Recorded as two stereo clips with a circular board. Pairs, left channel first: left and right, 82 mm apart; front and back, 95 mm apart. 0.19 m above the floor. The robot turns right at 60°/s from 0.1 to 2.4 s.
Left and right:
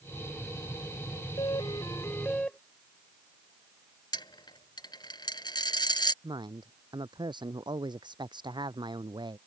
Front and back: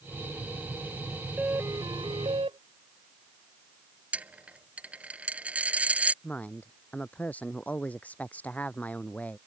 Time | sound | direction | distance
1.4 | a doorbell | 105° left | ?
4.1 | a dropped coin | 105° left | ?
6.2 | a woman speaking | 75° right | ?